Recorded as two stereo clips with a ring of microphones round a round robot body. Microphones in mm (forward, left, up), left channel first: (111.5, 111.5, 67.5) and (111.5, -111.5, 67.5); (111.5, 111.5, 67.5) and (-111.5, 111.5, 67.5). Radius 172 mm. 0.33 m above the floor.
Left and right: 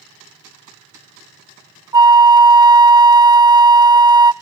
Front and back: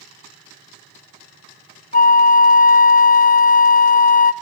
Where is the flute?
25° right, 1.3 m.